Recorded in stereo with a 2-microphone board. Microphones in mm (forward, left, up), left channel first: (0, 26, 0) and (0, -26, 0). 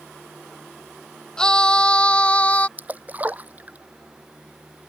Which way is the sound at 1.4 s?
15° left (ahead or behind).